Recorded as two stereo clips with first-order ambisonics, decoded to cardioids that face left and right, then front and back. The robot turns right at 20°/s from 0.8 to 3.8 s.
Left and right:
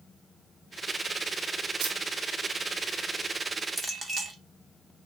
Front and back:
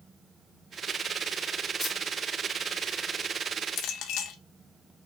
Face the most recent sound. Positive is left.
turn(degrees=-10)